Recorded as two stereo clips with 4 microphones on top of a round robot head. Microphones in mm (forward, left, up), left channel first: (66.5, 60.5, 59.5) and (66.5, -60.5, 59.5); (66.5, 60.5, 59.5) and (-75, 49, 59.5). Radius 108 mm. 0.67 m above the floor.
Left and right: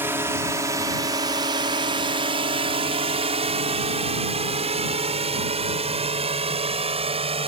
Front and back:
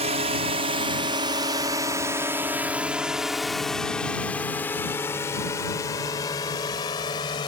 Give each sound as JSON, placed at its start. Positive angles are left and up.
{"t": 0.0, "sound": "a drone", "azimuth_deg": -160}